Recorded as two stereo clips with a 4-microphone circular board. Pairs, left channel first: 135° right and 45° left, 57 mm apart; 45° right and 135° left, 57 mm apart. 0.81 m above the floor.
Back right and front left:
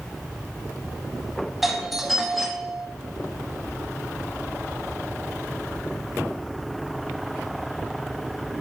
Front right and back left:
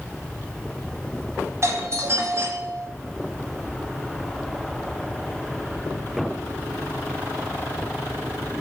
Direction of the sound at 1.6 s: 130° left.